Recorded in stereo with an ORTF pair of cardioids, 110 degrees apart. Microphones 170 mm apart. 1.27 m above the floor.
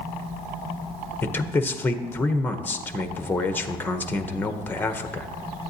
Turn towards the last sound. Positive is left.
turn(degrees=10)